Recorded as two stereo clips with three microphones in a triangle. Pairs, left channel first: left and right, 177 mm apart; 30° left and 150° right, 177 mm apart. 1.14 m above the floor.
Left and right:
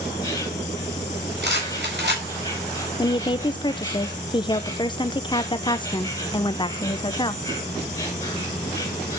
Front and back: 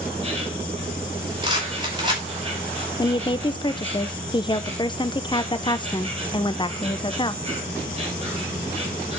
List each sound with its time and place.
0.0 s an insect: 155° left, 2.5 m
1.4 s a rattle: 85° right, 5 m
3.0 s a woman speaking: 60° left, 0.6 m